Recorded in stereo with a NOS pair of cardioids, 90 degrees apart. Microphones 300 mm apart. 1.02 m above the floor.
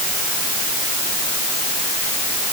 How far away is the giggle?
I don't hear a giggle.